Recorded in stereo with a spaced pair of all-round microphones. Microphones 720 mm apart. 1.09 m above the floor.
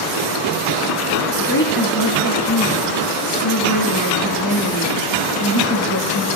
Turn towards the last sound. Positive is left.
turn(degrees=25)  # may be behind; listen again after turning